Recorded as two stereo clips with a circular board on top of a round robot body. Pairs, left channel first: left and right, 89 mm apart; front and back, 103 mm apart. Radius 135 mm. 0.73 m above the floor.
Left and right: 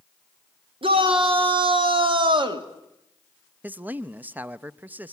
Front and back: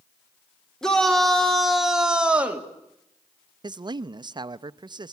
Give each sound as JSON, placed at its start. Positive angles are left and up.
{"t": 0.8, "sound": "a shout", "azimuth_deg": -85, "distance_m": 3.5}
{"t": 3.6, "sound": "a man speaking", "azimuth_deg": -155, "distance_m": 0.6}